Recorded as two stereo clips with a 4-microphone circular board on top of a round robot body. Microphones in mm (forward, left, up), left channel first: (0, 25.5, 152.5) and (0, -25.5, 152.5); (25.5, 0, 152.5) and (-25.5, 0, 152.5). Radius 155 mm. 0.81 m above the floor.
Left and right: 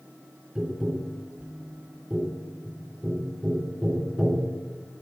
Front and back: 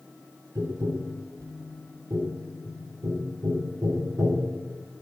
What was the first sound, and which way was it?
Tapping, 165° right.